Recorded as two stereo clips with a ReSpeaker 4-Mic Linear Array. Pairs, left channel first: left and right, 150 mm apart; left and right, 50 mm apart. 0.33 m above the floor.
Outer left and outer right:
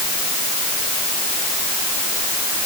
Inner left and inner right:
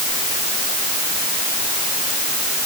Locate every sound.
Only background noise.